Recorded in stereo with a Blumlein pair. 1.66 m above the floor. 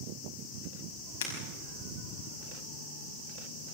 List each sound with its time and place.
1.2 s breaking glass: 60° left, 5.5 m